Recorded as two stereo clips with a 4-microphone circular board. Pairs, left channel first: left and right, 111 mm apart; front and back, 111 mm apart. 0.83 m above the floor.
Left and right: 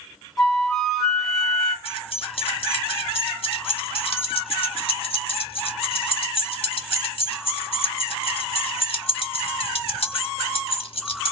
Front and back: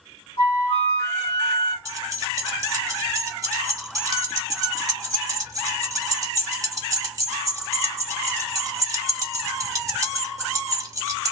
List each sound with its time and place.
0.4 s a flute: straight ahead, 1.2 m
1.9 s keys jangling: 120° left, 0.8 m